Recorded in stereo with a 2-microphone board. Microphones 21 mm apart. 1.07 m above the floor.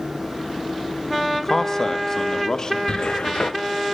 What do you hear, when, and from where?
1.3 s a man speaking: 15° left (ahead or behind), 0.9 m; by 2.8 s 35° left (ahead or behind), 1.9 m
2.9 s a cupboard door: 50° left (ahead or behind), 0.9 m